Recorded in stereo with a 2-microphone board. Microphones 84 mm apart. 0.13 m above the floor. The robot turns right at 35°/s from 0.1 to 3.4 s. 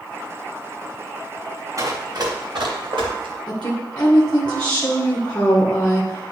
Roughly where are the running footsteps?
Right.